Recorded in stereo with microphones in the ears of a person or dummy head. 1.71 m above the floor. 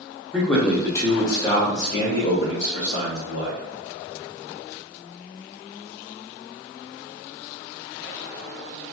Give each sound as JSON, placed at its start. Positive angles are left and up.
{"t": 0.3, "sound": "a man speaking", "side_deg": 5, "distance_m": 1.0}